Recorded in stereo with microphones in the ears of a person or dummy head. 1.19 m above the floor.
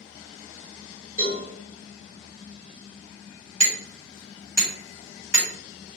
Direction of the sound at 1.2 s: 45° left (ahead or behind).